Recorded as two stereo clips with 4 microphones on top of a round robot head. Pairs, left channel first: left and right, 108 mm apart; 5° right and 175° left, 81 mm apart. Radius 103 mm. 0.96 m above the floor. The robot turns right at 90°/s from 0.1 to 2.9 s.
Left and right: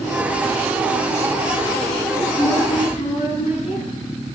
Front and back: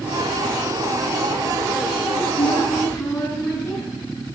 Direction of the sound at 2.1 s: 5° right.